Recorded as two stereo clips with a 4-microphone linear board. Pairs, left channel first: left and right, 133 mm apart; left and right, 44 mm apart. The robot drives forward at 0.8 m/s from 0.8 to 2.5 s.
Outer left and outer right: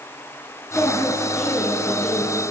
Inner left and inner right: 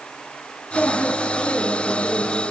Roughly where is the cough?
No cough in this recording.